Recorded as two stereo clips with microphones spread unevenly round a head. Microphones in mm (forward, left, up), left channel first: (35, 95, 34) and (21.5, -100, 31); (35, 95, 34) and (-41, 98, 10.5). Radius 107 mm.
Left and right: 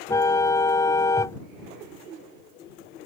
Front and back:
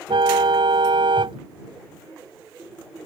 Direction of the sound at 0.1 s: 160° left.